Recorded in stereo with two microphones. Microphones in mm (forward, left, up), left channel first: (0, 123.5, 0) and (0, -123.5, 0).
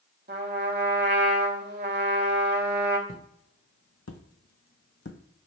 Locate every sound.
0.3 s a trumpet: 40° right (ahead or behind), 0.9 m
3.1 s footsteps: 60° left (ahead or behind), 1.1 m; by 5.2 s 45° left (ahead or behind), 0.6 m